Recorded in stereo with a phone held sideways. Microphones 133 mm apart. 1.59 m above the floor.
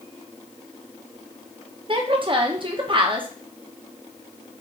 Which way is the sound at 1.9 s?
40° right (ahead or behind).